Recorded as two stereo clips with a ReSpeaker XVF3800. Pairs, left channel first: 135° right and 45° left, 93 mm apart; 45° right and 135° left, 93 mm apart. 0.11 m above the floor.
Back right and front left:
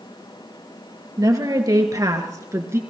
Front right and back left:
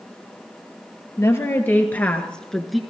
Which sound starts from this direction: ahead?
A woman speaking, at 1.2 s.